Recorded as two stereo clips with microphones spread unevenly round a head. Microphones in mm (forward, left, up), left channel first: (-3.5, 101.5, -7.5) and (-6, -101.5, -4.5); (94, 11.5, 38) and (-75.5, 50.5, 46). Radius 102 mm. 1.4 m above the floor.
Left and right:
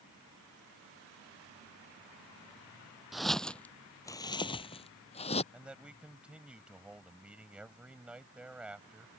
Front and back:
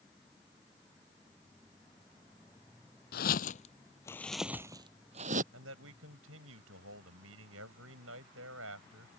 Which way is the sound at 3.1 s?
Straight ahead.